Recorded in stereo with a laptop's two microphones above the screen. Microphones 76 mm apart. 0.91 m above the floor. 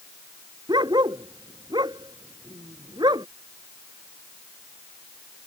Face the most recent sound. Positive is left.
turn(degrees=-75)  # may be behind; listen again after turning